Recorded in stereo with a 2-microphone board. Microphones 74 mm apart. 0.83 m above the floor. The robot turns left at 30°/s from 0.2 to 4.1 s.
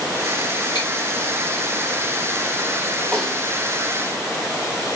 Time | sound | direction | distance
0.8 | chewing | 75° left (ahead or behind) | 2.5 m
3.1 | a snare drum | 15° left (ahead or behind) | 1.6 m